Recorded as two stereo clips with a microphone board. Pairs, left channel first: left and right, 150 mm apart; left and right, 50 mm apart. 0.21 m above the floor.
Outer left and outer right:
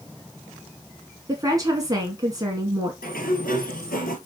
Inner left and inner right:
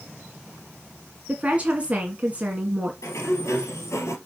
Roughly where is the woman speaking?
Right.